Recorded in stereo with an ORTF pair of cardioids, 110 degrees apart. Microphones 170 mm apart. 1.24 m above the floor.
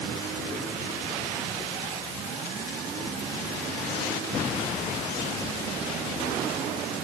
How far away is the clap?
No clap in this recording.